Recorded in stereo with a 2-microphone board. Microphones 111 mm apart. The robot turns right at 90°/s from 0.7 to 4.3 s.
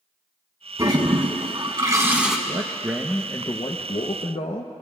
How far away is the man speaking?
About 0.8 m.